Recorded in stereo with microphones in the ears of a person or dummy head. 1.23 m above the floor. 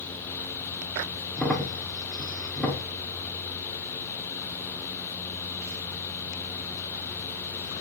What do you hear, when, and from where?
1.4 s a crack: centre (ahead or behind), 0.8 m